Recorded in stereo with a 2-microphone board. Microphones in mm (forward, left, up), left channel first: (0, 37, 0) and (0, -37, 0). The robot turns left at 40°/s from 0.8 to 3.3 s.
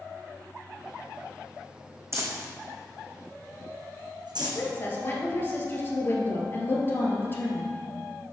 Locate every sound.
2.1 s crumpling: 40° right (ahead or behind), 1.7 m; by 4.6 s 80° right, 1.7 m
4.4 s a woman speaking: 30° left (ahead or behind), 2 m